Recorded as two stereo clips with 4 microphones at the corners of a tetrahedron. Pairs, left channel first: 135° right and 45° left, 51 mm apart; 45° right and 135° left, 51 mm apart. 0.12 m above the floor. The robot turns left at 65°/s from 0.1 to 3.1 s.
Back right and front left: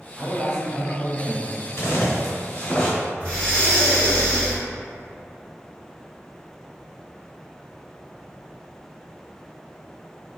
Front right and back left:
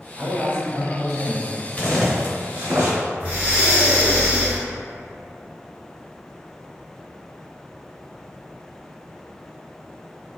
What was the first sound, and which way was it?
A man speaking, 140° left.